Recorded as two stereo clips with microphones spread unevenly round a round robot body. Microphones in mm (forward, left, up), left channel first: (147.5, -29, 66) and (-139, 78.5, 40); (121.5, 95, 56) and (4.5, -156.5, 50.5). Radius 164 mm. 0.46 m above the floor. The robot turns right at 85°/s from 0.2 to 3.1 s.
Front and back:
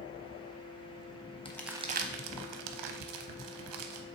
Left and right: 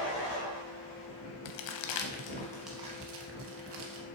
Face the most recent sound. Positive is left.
turn(degrees=-165)